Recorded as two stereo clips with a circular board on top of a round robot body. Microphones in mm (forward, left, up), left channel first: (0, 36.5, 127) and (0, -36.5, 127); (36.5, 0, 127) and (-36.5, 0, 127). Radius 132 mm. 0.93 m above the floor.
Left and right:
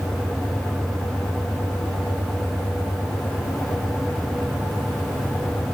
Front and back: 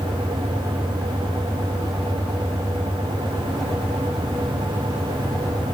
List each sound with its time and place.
Only background noise.